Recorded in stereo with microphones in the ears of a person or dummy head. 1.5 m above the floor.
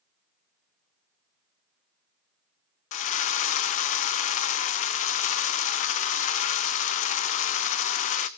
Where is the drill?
40° left (ahead or behind), 0.8 m.